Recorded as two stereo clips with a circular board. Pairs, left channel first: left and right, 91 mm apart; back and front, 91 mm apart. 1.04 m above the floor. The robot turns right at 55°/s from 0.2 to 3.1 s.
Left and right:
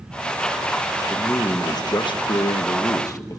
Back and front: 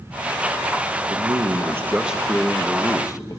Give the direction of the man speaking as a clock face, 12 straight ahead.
11 o'clock.